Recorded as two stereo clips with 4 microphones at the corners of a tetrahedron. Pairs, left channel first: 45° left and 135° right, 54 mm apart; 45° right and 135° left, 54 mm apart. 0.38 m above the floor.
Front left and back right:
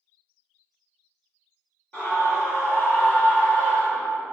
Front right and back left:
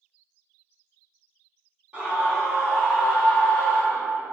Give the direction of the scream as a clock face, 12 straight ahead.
9 o'clock.